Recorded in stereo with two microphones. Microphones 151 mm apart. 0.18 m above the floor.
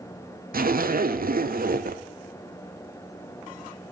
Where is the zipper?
75° right (ahead or behind), 0.6 m.